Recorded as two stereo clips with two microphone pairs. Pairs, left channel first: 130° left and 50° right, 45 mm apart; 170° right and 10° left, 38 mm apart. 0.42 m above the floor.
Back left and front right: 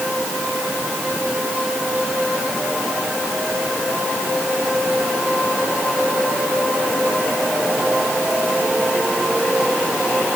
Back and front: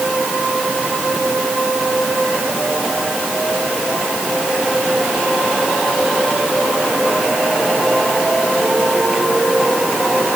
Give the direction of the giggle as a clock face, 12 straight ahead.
I don't hear a giggle.